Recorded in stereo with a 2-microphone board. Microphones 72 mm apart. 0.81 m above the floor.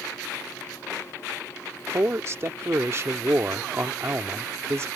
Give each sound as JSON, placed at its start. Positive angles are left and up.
{"t": 1.9, "sound": "a man speaking", "side_deg": -40}